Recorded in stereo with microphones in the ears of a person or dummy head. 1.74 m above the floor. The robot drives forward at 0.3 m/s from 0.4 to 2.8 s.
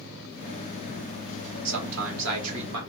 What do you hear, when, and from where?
1.6 s a man speaking: 70° right (ahead or behind), 1.3 m; by 2.8 s 85° right, 1.2 m